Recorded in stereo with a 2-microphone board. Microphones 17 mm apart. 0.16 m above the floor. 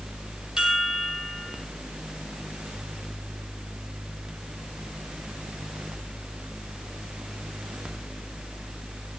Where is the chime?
40° right (ahead or behind), 6.5 m.